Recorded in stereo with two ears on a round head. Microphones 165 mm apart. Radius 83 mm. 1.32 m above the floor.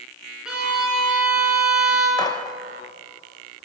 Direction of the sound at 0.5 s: 5° right (ahead or behind).